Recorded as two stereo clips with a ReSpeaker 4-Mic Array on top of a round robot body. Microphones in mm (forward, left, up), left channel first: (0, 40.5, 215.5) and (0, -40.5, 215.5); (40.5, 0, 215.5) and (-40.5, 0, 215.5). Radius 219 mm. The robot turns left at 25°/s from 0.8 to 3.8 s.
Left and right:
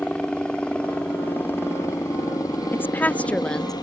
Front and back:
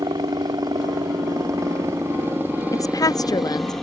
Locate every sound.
0.0 s a helicopter: 165° left; by 3.8 s 85° left
2.7 s a woman speaking: 35° left; by 3.7 s 10° left